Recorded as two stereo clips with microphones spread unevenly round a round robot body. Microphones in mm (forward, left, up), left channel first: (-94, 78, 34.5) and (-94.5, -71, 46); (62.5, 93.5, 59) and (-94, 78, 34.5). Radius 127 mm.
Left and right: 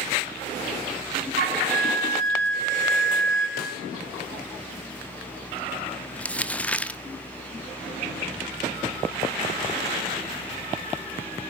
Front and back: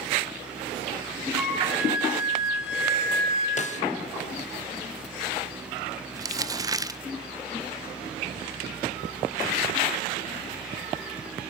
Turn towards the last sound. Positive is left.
turn(degrees=160)